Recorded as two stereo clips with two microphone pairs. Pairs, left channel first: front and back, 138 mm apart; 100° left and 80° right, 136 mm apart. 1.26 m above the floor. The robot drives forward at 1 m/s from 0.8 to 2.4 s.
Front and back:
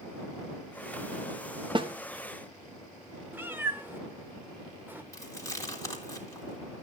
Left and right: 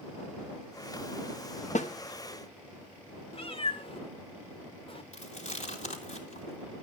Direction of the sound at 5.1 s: 70° left.